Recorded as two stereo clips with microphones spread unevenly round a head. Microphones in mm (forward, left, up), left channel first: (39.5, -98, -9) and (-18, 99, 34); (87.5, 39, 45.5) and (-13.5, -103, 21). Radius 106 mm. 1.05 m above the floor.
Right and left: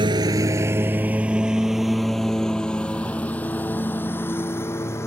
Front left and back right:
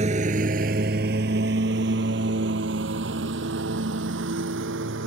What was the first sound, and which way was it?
A lawn mower, 170° left.